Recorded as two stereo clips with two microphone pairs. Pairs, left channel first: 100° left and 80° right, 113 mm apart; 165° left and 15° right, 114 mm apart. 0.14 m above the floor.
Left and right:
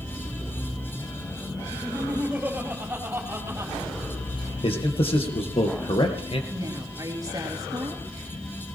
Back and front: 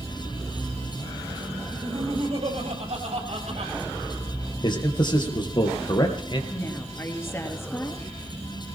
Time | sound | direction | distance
1.7 | laughter | straight ahead | 6 m
4.6 | a man speaking | 120° left | 3 m
6.5 | a woman speaking | 130° right | 3 m